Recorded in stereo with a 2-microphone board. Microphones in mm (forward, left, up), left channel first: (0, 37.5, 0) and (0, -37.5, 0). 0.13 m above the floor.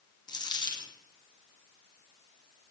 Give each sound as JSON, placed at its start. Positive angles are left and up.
{"t": 0.3, "sound": "a dropped coin", "side_deg": 70, "distance_m": 2.0}